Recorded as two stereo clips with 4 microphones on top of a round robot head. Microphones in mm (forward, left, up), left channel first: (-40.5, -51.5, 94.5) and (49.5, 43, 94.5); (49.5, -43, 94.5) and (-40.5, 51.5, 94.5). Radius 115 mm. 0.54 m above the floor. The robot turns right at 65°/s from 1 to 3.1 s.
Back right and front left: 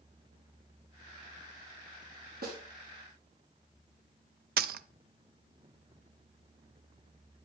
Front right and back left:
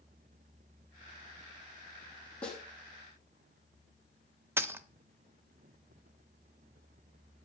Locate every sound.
2.4 s a snare drum: 35° left, 3.5 m; by 2.6 s 50° left, 3.5 m
4.6 s a dropped coin: 60° left, 0.5 m